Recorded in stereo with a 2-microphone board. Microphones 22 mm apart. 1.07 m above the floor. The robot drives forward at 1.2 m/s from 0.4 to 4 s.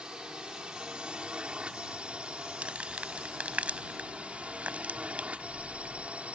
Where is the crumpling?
65° right (ahead or behind); by 6.1 s 80° right.